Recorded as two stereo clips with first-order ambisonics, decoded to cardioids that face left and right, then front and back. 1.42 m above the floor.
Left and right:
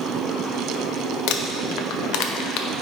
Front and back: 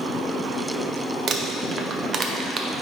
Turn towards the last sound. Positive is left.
turn(degrees=115)